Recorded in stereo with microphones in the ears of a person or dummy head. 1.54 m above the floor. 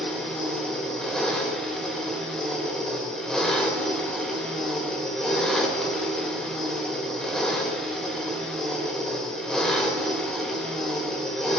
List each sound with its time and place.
0.0 s an engine running: 5° left (ahead or behind), 1.9 m